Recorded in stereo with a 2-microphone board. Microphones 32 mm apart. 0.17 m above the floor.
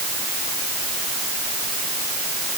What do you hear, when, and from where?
Only background noise.